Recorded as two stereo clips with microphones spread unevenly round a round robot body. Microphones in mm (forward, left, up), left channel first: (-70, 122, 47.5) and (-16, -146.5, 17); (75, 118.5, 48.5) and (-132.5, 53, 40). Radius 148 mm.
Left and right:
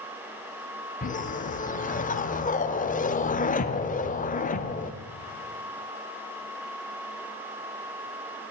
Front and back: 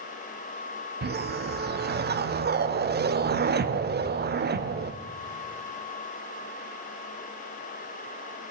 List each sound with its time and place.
1.0 s a whoosh: 165° left, 1.0 m